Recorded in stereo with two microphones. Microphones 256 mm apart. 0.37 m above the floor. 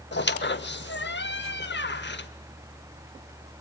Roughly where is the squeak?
Left.